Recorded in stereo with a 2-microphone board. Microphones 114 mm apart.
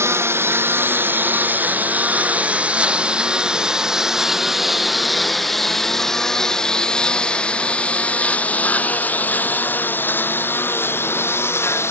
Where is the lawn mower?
25° right (ahead or behind); by 11.9 s 20° left (ahead or behind).